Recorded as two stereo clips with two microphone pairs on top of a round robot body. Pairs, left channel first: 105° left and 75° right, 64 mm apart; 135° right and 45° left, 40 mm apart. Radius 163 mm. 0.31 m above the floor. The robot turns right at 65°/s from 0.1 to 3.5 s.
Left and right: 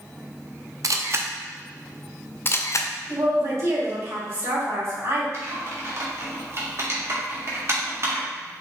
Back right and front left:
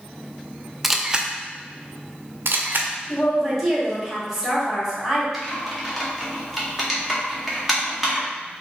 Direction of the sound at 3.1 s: 70° right.